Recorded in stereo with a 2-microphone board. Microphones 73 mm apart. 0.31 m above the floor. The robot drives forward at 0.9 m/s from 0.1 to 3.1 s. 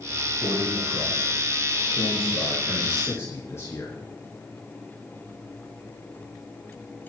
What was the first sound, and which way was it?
A man speaking, 50° left (ahead or behind).